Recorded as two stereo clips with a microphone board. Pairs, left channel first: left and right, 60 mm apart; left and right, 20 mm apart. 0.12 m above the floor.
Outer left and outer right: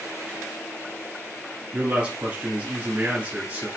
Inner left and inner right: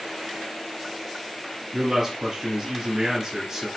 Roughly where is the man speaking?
Centre.